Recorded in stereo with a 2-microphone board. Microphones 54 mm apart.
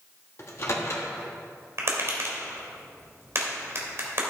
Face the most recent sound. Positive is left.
turn(degrees=-50)  # may be behind; listen again after turning